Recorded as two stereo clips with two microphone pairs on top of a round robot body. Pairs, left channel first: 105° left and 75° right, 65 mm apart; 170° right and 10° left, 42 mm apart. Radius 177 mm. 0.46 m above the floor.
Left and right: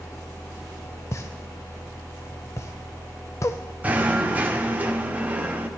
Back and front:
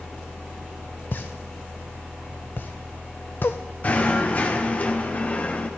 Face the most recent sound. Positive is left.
turn(degrees=-125)